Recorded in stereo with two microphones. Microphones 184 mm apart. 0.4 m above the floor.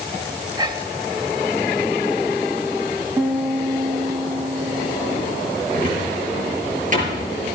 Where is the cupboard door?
45° right (ahead or behind), 6 m.